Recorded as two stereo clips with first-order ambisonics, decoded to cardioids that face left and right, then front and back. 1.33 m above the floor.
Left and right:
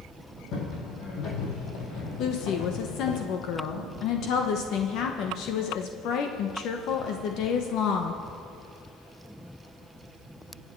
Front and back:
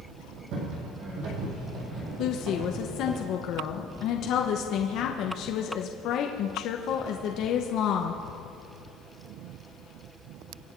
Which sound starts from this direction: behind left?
Footsteps, at 0.5 s.